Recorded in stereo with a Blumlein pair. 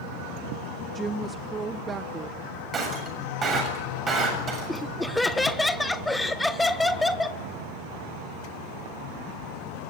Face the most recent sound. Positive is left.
turn(degrees=5)